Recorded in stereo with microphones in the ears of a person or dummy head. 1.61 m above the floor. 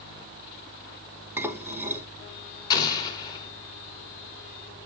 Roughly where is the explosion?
Left.